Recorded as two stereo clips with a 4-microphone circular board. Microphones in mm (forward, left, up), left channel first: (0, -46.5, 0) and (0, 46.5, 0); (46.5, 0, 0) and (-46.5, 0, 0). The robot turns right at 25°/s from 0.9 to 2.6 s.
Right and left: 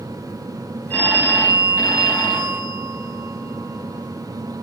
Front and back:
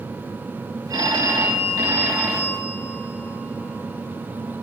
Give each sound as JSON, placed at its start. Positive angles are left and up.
{"t": 0.9, "sound": "a phone ringing", "azimuth_deg": -155, "distance_m": 1.2}